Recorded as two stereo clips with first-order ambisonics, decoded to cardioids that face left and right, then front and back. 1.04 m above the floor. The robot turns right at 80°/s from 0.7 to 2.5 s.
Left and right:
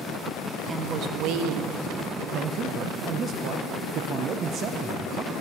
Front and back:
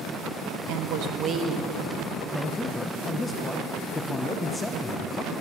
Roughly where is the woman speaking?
Behind.